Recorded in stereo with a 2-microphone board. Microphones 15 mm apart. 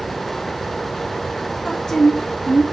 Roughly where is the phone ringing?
I don't hear a phone ringing.